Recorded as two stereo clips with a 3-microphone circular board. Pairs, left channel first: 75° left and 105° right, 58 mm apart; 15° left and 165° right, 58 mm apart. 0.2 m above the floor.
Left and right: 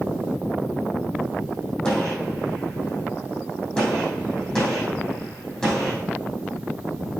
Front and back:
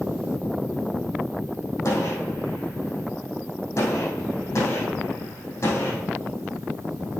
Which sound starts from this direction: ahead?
A gunshot, at 1.9 s.